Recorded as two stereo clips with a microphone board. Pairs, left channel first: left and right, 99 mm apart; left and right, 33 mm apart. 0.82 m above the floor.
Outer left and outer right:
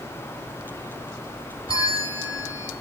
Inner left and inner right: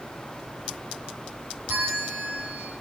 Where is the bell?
55° right (ahead or behind), 1.5 m.